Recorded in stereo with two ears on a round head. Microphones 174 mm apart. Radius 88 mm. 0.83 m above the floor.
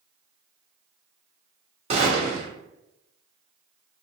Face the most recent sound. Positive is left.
turn(degrees=-30)  # may be behind; listen again after turning